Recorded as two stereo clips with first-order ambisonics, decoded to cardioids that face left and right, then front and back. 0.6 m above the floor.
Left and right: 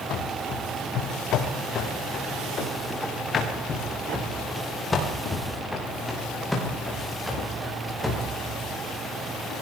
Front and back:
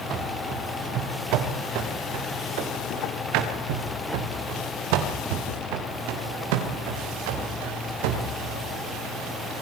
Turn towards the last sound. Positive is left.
turn(degrees=-175)